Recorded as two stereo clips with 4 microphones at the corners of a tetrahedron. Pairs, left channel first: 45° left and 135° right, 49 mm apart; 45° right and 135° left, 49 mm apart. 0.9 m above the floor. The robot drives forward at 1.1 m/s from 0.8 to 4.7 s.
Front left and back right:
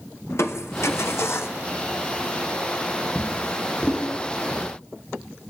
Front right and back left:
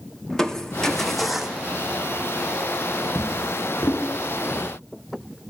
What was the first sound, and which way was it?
Crushing, 30° left.